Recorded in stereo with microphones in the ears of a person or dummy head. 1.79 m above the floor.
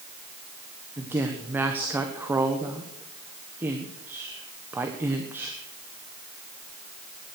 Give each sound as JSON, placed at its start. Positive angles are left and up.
{"t": 1.0, "sound": "a woman speaking", "side_deg": -10, "distance_m": 1.2}